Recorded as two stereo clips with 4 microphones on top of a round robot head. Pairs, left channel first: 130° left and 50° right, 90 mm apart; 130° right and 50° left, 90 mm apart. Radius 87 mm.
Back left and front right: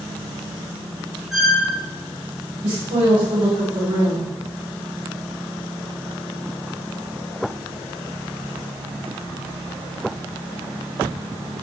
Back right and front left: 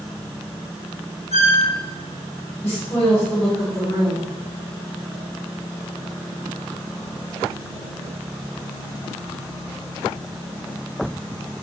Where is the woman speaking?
65° right, 3 m.